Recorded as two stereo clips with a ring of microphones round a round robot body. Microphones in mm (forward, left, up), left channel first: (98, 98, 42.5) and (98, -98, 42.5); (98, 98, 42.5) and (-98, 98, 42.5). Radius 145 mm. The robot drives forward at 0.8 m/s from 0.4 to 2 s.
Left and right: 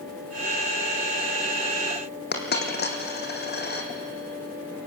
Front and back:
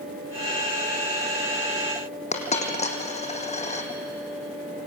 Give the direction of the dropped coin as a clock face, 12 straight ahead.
10 o'clock.